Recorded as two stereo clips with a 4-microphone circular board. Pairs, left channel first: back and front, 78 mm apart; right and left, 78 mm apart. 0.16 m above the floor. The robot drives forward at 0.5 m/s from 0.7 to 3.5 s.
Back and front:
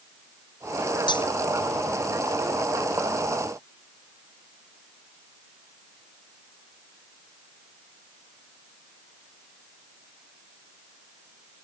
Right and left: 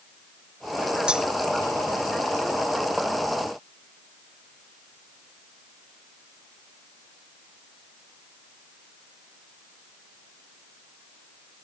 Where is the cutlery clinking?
170° left.